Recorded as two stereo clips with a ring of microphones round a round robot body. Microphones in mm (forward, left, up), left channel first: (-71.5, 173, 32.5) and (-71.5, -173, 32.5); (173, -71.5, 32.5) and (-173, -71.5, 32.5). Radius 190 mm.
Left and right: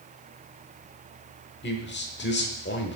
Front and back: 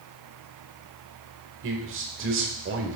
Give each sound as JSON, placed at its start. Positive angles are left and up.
{"t": 1.6, "sound": "a man speaking", "azimuth_deg": 140, "distance_m": 1.1}